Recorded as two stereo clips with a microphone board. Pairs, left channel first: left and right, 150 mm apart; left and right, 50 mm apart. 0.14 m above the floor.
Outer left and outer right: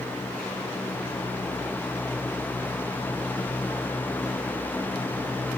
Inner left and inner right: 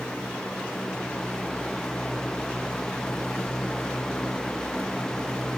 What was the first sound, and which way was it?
Only background noise.